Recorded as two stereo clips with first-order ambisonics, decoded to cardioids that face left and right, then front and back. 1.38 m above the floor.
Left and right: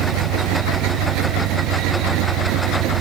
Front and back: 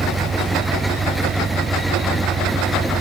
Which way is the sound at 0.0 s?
110° right.